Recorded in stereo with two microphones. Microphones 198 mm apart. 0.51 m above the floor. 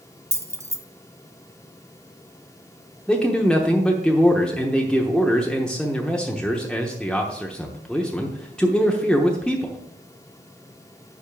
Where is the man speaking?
5° left (ahead or behind), 0.9 m.